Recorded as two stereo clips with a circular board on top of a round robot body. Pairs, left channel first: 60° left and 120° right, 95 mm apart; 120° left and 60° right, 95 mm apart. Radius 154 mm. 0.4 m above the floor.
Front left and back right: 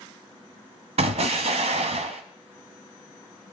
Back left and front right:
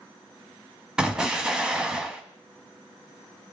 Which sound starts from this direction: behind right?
An explosion, at 1.0 s.